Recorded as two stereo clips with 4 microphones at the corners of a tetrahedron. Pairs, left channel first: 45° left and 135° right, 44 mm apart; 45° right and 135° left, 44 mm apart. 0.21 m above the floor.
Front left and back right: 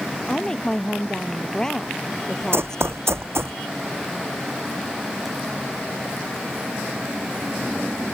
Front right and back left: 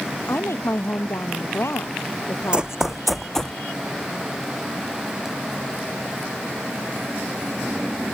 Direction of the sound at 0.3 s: 30° right.